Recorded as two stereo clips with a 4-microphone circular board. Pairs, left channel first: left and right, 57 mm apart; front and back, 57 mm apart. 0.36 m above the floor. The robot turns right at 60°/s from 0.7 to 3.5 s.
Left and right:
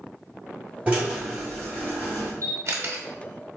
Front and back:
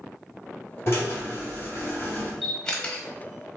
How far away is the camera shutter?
About 0.9 m.